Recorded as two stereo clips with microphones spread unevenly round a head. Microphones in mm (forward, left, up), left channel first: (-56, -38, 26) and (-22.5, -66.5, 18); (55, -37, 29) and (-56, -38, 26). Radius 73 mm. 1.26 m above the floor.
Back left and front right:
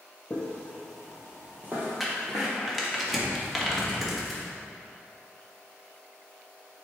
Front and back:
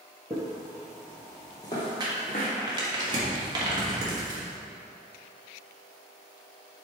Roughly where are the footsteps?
Behind left.